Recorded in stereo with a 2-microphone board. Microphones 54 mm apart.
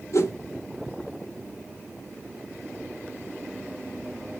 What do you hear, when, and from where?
0.1 s a whoosh: 60° left (ahead or behind), 0.8 m